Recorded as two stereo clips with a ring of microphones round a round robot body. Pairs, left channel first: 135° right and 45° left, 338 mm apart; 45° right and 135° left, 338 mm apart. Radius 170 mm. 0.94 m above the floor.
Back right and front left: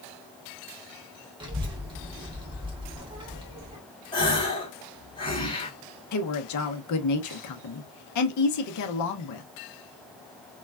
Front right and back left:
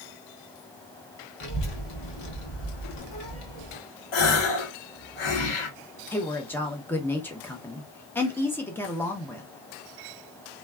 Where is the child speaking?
30° right, 1.5 m.